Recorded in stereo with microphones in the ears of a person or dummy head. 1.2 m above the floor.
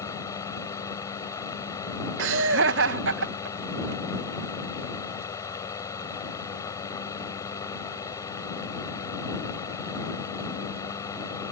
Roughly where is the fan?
Centre.